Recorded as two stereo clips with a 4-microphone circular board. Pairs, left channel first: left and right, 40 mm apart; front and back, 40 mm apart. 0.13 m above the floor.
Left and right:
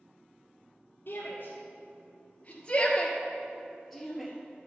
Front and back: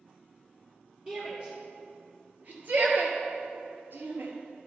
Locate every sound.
1.1 s a shout: 120° left, 2.5 m; by 4.3 s 175° right, 2 m